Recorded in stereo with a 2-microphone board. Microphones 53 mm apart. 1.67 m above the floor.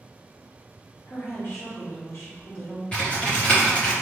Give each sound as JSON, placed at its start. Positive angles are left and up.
{"t": 1.1, "sound": "a woman speaking", "side_deg": 55, "distance_m": 1.2}
{"t": 2.9, "sound": "typing on a keyboard", "side_deg": 25, "distance_m": 1.2}